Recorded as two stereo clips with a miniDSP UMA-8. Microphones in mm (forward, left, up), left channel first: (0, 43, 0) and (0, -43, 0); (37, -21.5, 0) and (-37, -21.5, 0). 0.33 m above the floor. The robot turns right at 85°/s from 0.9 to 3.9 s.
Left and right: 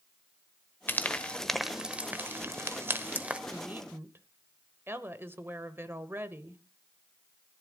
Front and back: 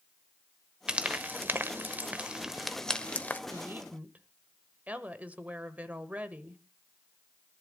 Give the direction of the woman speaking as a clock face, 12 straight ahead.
5 o'clock.